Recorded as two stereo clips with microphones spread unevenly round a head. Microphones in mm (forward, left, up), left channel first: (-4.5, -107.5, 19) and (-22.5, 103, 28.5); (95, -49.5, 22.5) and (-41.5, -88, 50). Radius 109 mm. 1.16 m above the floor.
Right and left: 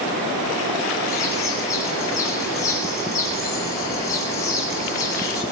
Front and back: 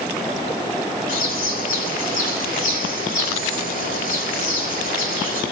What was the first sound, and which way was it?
A bird, 10° right.